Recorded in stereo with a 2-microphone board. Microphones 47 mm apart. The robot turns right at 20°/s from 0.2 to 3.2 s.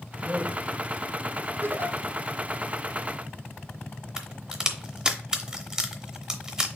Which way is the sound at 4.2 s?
15° right (ahead or behind).